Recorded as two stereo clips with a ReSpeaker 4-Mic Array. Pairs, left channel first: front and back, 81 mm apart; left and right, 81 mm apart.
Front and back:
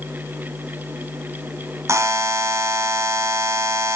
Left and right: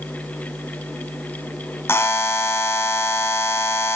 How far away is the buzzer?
About 1.5 m.